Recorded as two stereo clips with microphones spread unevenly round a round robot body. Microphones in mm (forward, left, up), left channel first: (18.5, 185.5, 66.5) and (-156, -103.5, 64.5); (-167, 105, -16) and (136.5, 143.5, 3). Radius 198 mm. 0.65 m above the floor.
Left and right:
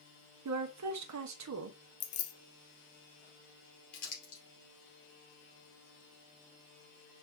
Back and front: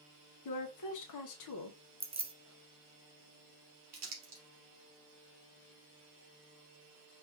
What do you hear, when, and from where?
0.5 s a woman speaking: 160° right, 0.9 m
2.0 s keys jangling: 85° left, 0.8 m
3.9 s crumpling: 45° left, 2.5 m